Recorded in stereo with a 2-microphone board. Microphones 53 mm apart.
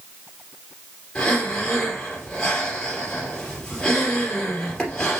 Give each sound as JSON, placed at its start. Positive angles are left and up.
{"t": 1.1, "sound": "breathing", "side_deg": 10, "distance_m": 3.5}